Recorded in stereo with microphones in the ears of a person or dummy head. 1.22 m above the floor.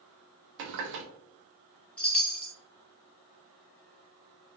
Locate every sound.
0.6 s a running tap: 60° right (ahead or behind), 0.5 m
2.0 s a chime: 5° left (ahead or behind), 0.5 m